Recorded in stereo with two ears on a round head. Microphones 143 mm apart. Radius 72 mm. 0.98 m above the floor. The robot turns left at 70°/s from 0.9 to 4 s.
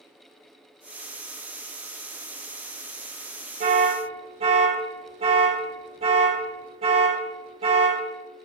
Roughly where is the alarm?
Right.